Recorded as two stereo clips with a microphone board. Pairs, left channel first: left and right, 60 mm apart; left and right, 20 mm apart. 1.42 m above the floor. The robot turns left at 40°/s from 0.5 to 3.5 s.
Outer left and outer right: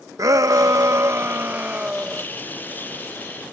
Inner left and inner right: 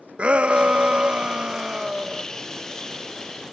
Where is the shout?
105° right; by 2.2 s 175° right.